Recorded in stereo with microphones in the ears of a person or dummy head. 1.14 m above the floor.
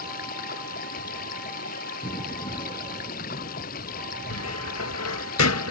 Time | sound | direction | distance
0.0 | running water | 50° left (ahead or behind) | ?
2.0 | an explosion | 25° left (ahead or behind) | ?
4.3 | a cupboard door | 85° left | ?